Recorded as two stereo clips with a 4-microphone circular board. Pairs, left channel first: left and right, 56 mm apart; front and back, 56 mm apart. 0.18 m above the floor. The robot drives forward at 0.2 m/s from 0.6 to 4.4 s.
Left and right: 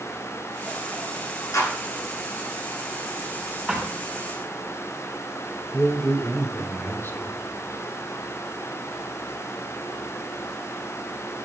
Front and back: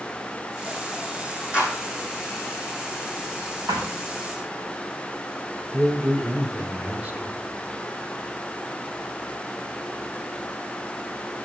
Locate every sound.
1.5 s a clap: 110° left, 9 m
3.7 s a thud: straight behind, 4 m
5.7 s a man speaking: 125° left, 3.5 m